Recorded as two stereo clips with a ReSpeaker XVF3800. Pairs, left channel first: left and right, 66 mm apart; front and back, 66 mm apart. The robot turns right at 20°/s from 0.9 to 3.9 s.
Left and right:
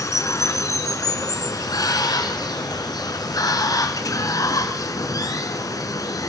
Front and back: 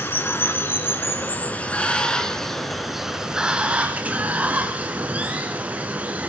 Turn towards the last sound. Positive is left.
turn(degrees=115)